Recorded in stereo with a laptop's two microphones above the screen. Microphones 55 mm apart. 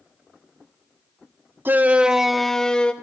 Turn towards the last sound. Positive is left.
turn(degrees=20)  # may be behind; listen again after turning